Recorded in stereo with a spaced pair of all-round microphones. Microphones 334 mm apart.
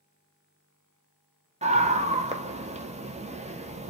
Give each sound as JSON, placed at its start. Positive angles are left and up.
{"t": 1.6, "sound": "a scream", "side_deg": -20, "distance_m": 0.5}